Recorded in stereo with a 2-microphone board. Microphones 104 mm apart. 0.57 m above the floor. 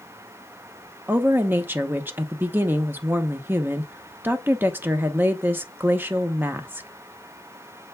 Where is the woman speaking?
20° right (ahead or behind), 1.0 m.